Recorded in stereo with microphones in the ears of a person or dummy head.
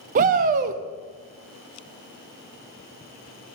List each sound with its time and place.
0.1 s a shout: 40° right (ahead or behind), 0.7 m